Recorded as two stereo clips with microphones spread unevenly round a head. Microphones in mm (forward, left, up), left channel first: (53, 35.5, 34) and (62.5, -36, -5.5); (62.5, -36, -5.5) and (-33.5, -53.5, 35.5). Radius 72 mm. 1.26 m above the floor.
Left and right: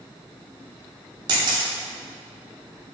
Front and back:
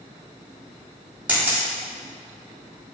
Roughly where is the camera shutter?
Right.